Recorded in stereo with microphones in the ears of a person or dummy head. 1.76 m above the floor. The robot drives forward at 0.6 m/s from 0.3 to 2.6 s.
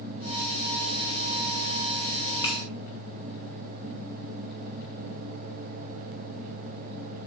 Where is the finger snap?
15° left (ahead or behind), 1.6 m.